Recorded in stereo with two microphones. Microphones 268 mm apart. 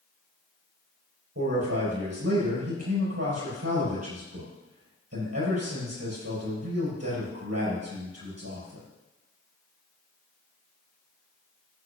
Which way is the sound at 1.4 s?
65° right (ahead or behind).